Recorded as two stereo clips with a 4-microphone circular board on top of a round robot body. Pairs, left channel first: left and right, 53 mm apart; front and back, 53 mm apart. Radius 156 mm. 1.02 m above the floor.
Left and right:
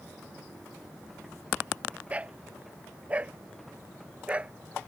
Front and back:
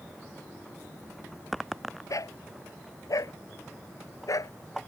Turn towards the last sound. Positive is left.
turn(degrees=-20)